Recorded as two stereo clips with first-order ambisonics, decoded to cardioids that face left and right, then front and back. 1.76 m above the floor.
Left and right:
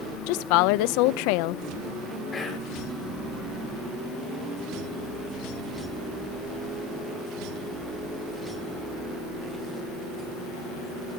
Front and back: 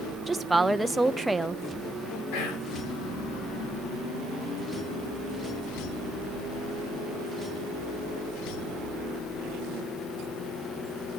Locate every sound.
0.3 s a woman speaking: 100° left, 0.7 m
2.3 s whispering: 20° left, 5.5 m